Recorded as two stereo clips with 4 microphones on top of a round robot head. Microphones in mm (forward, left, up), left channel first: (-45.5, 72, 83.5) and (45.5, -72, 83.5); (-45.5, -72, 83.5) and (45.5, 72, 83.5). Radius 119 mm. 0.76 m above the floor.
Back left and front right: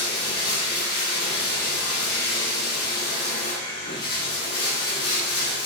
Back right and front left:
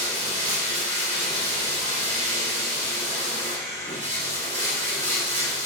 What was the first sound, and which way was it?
Running water, 105° left.